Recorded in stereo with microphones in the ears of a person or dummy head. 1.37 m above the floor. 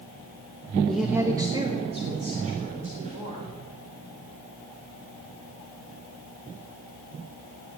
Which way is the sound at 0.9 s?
10° left (ahead or behind).